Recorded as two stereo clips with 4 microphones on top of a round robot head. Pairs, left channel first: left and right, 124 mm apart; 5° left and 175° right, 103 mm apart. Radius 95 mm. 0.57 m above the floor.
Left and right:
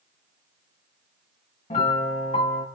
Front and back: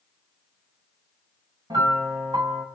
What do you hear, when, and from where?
1.7 s a piano: 140° left, 5 m